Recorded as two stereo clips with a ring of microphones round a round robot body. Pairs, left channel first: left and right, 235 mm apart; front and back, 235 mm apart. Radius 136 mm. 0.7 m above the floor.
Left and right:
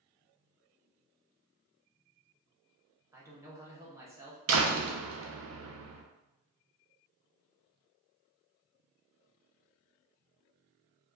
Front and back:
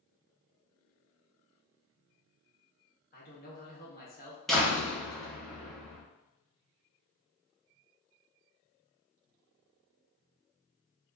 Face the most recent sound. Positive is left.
turn(degrees=-90)